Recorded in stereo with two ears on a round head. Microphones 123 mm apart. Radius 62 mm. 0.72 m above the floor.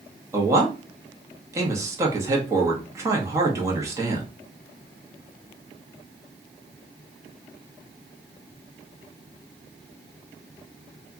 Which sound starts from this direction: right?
A man speaking, at 0.3 s.